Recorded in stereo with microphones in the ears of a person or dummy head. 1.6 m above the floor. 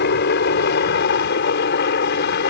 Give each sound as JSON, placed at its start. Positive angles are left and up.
{"t": 0.0, "sound": "a helicopter", "side_deg": 55}